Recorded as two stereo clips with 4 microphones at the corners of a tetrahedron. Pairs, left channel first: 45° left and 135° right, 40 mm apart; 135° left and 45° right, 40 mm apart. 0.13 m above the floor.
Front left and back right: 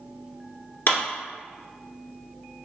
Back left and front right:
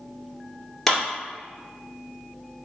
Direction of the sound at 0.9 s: 55° left.